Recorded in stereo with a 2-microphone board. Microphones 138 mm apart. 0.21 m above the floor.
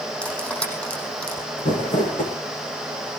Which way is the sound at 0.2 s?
10° left (ahead or behind).